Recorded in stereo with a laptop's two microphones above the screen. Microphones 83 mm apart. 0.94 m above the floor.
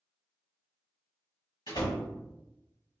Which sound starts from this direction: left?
A door slam, at 1.7 s.